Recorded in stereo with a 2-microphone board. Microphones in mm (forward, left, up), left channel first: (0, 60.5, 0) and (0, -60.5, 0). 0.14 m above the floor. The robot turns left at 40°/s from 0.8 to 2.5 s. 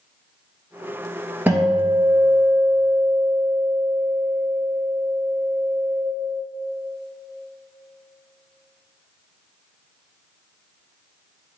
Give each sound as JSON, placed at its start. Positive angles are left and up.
{"t": 1.5, "sound": "a guitar", "azimuth_deg": -165, "distance_m": 1.6}